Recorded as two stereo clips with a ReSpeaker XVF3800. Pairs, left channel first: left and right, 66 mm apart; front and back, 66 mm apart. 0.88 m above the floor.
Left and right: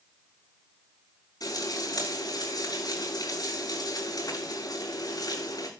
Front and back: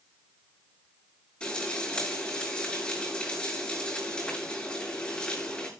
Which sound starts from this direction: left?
Frying, at 1.4 s.